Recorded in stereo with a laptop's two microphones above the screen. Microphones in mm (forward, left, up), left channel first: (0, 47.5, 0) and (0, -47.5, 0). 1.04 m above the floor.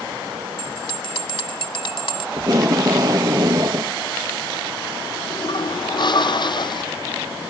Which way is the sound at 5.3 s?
55° left (ahead or behind).